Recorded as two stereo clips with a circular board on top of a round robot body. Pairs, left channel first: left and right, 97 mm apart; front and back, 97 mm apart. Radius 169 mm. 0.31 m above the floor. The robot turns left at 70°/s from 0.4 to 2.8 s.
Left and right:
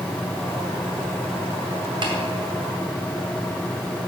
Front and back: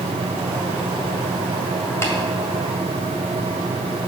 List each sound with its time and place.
2.0 s tapping: 60° right, 2.0 m; by 2.1 s 70° right, 2.0 m